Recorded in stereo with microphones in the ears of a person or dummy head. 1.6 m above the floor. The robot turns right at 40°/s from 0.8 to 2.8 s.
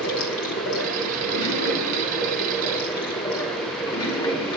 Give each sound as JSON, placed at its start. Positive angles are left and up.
{"t": 0.0, "sound": "running water", "azimuth_deg": 70, "distance_m": 2.5}